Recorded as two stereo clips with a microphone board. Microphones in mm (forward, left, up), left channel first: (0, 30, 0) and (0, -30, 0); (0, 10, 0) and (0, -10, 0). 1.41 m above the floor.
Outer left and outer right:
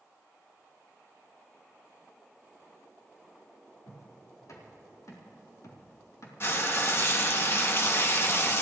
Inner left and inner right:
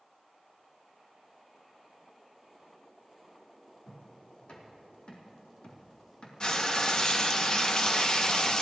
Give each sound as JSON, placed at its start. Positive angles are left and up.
{"t": 3.9, "sound": "footsteps", "side_deg": 70, "distance_m": 4.0}
{"t": 6.4, "sound": "frying", "side_deg": 45, "distance_m": 0.9}